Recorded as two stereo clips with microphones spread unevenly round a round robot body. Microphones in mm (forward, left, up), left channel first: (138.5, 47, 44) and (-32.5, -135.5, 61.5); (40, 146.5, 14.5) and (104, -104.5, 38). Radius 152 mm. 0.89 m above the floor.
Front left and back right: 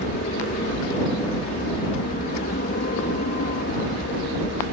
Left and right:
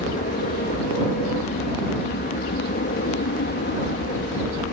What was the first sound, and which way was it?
An aircraft, 80° left.